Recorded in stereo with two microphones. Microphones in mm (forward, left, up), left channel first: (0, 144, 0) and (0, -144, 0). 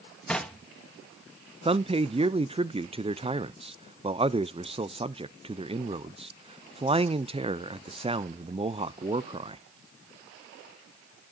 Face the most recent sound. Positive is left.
turn(degrees=-20)  # may be behind; listen again after turning